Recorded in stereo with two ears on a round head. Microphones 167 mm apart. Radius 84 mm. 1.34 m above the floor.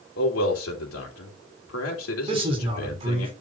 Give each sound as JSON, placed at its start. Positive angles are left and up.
{"t": 0.2, "sound": "a man speaking", "side_deg": 85, "distance_m": 3.5}
{"t": 2.3, "sound": "a man speaking", "side_deg": -30, "distance_m": 4.5}